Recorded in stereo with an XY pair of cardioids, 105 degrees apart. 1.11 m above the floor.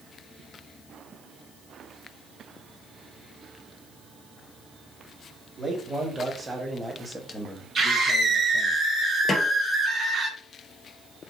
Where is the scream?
45° right, 2 m.